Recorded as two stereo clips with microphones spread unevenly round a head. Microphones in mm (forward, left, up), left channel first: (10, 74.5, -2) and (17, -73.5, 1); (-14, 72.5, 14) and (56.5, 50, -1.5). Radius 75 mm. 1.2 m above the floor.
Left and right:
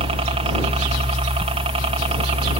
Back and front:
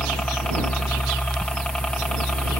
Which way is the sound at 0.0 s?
115° right.